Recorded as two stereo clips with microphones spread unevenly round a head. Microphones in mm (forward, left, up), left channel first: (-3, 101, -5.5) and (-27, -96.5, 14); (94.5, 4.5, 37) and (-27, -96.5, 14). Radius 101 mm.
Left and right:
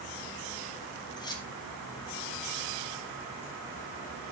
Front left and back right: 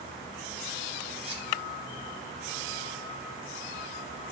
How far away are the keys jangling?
About 3 m.